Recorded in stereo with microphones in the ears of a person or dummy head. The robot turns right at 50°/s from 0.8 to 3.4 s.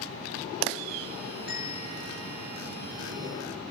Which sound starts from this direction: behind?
A bell, at 1.5 s.